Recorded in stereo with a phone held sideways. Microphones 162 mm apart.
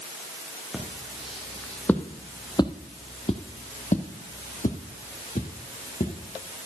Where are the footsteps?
5° right (ahead or behind), 2.5 m; by 6.2 s 50° left (ahead or behind), 3 m.